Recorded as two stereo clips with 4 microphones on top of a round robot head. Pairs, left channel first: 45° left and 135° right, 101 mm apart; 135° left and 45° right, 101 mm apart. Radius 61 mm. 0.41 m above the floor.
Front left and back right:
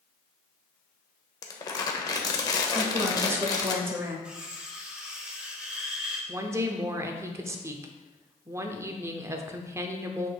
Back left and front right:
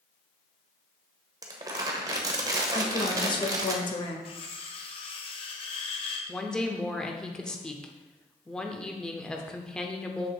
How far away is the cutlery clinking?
About 1.2 m.